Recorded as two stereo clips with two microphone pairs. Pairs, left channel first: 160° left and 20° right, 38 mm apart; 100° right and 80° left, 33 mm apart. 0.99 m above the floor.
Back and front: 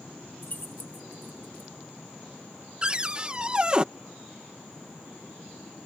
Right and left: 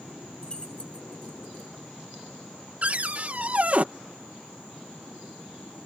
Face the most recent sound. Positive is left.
turn(degrees=40)